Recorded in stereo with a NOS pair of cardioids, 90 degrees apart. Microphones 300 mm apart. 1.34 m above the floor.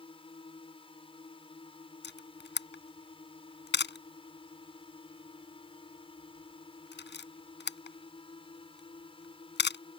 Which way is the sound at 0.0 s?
15° left.